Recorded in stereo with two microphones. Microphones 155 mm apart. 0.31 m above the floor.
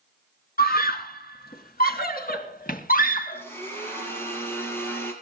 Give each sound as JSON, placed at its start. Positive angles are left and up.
{"t": 0.6, "sound": "a scream", "side_deg": 75, "distance_m": 3.5}
{"t": 3.3, "sound": "a blender", "side_deg": 15, "distance_m": 6.5}